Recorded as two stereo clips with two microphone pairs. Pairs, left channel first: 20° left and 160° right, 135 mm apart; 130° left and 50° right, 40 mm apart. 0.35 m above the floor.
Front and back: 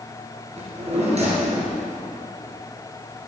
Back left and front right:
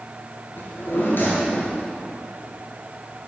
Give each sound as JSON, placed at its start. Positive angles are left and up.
{"t": 0.6, "sound": "a drawer", "azimuth_deg": 160, "distance_m": 3.0}